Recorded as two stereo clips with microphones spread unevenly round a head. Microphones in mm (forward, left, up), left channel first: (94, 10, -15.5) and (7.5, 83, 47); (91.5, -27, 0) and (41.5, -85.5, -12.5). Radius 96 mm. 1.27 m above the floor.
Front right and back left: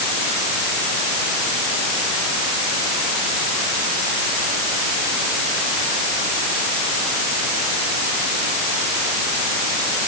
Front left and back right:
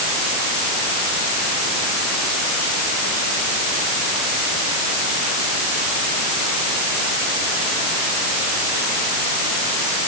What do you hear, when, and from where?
Only background noise.